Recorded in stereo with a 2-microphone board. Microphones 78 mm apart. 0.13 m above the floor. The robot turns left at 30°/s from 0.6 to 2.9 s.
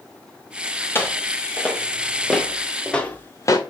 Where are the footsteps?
30° left (ahead or behind), 4 m; by 3.6 s 50° left (ahead or behind), 1.6 m.